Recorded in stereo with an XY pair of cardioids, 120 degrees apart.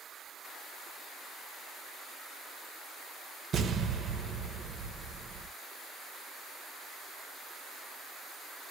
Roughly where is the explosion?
Ahead right.